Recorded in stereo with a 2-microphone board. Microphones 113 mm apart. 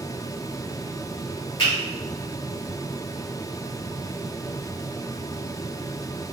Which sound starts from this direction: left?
A finger snap, at 1.6 s.